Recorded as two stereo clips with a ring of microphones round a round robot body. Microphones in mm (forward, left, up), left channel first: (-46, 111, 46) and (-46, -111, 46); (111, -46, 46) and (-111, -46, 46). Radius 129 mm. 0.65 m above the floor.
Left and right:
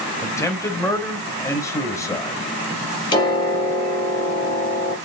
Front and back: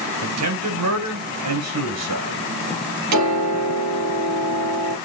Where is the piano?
160° left, 5 m.